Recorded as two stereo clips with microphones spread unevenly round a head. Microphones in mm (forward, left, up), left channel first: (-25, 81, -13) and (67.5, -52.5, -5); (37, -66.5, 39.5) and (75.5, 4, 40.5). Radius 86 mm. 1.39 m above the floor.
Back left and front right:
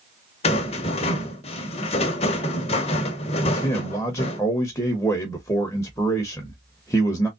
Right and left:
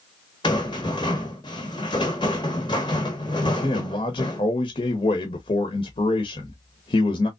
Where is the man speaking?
155° right, 0.8 m.